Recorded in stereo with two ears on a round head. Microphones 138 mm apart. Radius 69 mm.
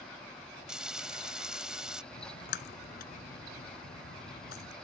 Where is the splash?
70° left (ahead or behind).